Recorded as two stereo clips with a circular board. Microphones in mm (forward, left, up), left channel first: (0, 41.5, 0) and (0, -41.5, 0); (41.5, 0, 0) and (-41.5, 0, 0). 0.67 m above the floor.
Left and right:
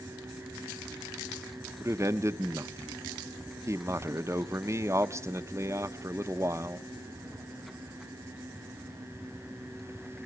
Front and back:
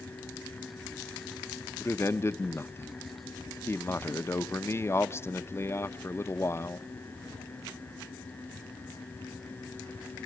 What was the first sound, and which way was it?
A man speaking, 50° right.